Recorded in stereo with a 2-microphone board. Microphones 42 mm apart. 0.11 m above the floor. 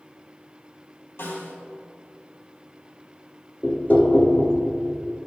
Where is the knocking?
45° left (ahead or behind), 1.0 m.